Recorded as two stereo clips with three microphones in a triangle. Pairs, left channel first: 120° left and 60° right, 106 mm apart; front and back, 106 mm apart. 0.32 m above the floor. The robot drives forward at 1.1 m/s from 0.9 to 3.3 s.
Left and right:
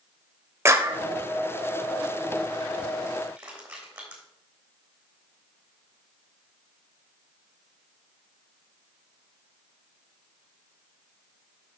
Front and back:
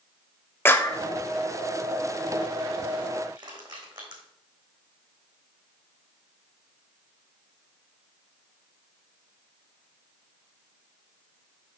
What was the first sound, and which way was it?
A clap, 35° right.